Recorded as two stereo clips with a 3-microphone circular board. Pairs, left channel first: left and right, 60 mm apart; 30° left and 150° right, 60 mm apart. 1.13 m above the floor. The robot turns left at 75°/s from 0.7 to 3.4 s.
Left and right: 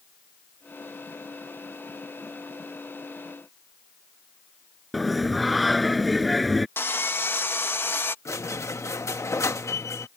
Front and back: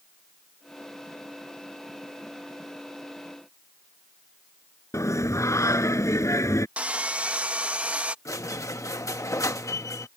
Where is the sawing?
140° left.